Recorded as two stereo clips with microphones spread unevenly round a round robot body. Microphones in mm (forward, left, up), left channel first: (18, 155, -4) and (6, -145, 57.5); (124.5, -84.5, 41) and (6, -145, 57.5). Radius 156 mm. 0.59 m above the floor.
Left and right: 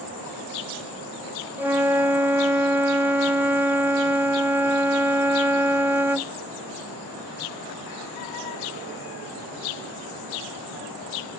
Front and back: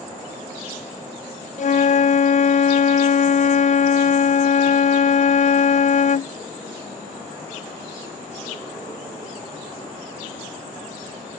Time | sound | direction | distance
1.6 | a flute | 5° right | ?